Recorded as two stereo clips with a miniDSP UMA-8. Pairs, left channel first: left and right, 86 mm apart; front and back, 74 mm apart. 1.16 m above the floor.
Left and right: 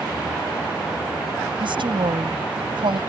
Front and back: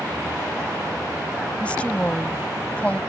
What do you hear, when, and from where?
1.6 s a woman speaking: 75° right